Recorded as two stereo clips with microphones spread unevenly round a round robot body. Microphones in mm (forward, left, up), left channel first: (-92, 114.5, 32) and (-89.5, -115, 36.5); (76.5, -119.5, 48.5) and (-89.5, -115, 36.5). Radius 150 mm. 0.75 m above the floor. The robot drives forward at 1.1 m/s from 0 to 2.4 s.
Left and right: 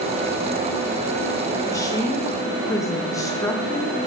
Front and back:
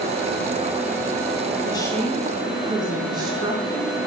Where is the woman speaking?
30° left, 0.9 m; by 4.0 s 150° left, 0.9 m.